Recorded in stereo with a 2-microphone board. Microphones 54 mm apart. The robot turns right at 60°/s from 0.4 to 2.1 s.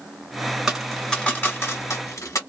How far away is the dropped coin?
About 1.3 m.